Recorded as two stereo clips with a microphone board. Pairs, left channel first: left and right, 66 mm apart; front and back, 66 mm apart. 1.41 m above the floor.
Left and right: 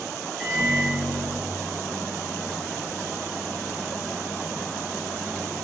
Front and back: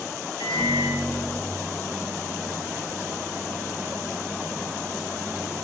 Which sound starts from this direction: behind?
A microwave, at 0.4 s.